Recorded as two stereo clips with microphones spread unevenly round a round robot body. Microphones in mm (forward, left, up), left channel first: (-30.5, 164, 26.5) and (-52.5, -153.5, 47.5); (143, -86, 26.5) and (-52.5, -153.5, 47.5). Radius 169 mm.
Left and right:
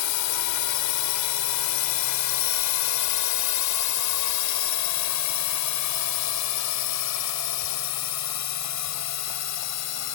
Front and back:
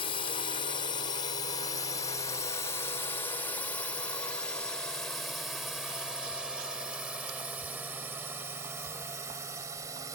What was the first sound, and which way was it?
A drone, 80° left.